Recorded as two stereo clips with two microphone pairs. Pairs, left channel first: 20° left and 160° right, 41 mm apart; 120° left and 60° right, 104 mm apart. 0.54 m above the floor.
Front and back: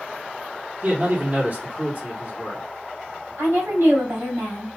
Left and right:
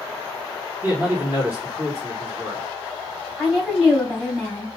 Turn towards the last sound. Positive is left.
turn(degrees=-140)